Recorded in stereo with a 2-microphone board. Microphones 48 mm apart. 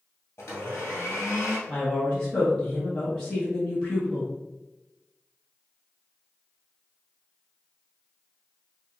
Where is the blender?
65° left (ahead or behind), 1.9 m.